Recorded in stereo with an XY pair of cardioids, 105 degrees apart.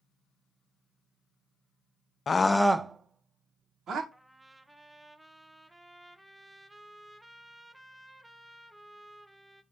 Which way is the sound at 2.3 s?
40° left.